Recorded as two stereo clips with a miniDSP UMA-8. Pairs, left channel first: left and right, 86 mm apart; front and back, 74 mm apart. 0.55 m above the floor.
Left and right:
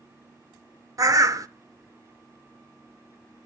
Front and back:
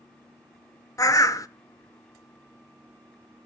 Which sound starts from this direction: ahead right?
A bird, at 1.0 s.